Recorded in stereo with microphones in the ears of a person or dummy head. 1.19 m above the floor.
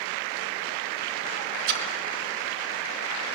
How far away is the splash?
About 1.9 m.